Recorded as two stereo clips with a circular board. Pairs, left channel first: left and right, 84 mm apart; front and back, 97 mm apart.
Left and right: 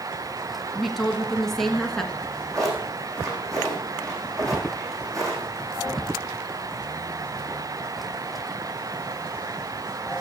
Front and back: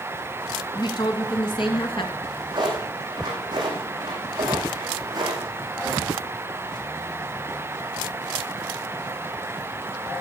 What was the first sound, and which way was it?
A woman speaking, straight ahead.